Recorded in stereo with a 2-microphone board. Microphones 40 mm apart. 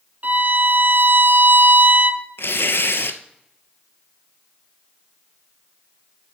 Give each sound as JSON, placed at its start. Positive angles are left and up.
{"t": 0.2, "sound": "a violin", "side_deg": -45, "distance_m": 0.8}
{"t": 2.4, "sound": "tearing paper", "side_deg": 75, "distance_m": 0.8}